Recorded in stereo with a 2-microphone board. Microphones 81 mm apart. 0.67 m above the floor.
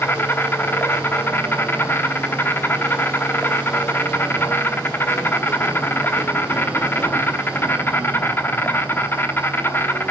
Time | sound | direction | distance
0.0 | an insect | 30° left (ahead or behind) | 0.9 m